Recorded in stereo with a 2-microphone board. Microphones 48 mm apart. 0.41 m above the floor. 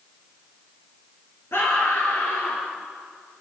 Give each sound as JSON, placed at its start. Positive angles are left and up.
{"t": 1.5, "sound": "a scream", "side_deg": 60, "distance_m": 6.5}